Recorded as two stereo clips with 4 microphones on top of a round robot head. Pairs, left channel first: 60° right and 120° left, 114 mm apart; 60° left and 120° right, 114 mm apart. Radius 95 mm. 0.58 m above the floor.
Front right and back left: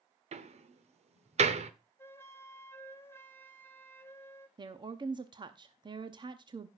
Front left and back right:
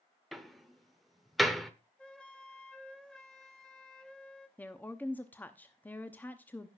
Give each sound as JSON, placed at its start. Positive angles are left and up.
{"t": 0.3, "sound": "a door slam", "azimuth_deg": 150, "distance_m": 1.2}
{"t": 2.0, "sound": "a flute", "azimuth_deg": -20, "distance_m": 1.3}
{"t": 4.6, "sound": "a woman speaking", "azimuth_deg": 125, "distance_m": 0.9}